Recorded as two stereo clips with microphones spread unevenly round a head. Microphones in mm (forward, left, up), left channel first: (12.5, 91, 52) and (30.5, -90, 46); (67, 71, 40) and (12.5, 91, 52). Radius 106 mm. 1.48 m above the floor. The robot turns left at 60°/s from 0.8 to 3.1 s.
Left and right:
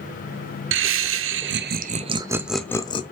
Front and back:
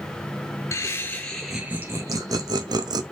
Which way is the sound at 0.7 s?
70° right.